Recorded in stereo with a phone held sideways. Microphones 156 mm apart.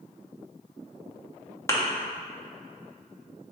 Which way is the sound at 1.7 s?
20° left (ahead or behind).